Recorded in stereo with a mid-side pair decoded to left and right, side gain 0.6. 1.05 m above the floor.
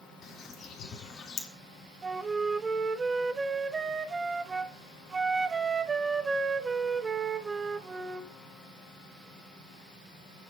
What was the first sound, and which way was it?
A bird, 45° left.